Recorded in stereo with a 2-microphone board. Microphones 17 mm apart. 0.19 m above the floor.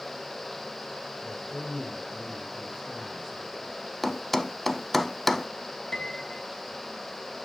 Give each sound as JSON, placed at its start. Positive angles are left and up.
{"t": 1.2, "sound": "a man speaking", "side_deg": 20, "distance_m": 2.5}
{"t": 4.0, "sound": "a thud", "side_deg": 10, "distance_m": 0.5}
{"t": 5.9, "sound": "a piano", "side_deg": 45, "distance_m": 0.8}